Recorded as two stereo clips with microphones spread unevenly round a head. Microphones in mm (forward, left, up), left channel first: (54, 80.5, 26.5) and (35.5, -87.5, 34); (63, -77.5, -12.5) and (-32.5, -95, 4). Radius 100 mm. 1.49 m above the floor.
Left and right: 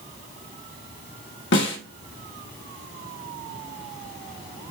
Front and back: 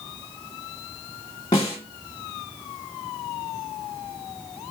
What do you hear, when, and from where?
1.5 s a snare drum: 80° left, 1.8 m